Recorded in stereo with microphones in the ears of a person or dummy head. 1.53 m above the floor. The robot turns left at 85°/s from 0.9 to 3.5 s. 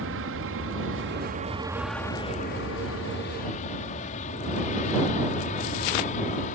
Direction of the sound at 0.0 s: 70° right (ahead or behind).